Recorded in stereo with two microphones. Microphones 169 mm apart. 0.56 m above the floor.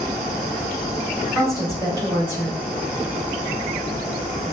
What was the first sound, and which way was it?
A woman speaking, 25° right (ahead or behind).